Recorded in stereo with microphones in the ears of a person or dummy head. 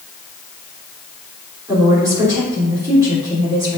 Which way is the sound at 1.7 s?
15° right (ahead or behind).